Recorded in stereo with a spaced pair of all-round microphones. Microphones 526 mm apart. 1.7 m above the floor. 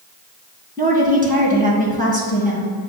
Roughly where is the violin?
I don't hear a violin.